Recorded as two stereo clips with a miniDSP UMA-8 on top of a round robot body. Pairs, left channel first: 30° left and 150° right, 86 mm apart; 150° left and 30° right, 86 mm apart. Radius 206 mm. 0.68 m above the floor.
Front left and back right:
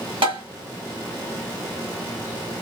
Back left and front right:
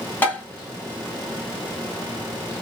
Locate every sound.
0.2 s tapping: 145° right, 2.5 m